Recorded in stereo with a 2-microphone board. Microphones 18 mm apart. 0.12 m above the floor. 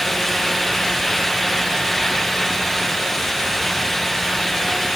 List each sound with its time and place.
Only background noise.